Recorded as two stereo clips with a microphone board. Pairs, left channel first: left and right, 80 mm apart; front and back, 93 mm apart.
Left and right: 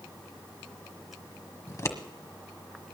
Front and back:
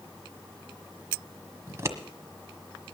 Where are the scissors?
130° left, 1.4 m.